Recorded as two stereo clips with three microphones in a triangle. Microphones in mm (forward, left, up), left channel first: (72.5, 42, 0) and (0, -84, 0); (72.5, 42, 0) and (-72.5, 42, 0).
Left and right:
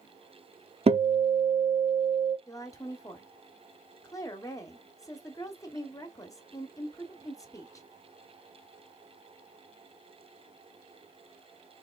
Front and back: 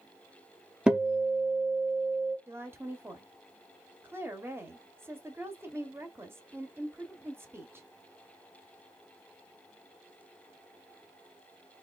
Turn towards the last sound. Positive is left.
turn(degrees=115)